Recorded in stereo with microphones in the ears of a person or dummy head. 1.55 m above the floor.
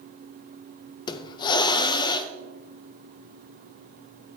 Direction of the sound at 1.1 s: 30° left (ahead or behind).